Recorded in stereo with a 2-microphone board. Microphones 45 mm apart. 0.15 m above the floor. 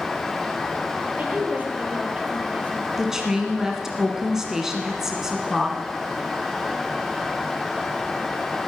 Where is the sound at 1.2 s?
35° right (ahead or behind), 3.5 m.